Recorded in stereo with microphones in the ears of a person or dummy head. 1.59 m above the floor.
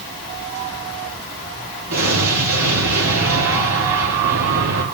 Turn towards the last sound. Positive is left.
turn(degrees=-75)  # may be behind; listen again after turning